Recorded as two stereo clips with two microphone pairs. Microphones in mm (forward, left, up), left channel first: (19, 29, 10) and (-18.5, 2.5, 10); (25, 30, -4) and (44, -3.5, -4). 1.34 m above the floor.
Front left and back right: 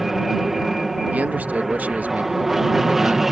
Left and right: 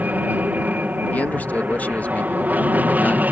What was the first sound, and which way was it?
An aircraft, 65° right.